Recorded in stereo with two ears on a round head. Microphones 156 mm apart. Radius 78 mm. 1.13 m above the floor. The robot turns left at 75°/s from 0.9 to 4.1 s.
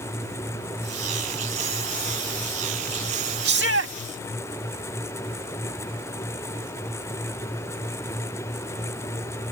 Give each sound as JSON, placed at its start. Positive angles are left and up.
{"t": 3.5, "sound": "a shout", "azimuth_deg": -70}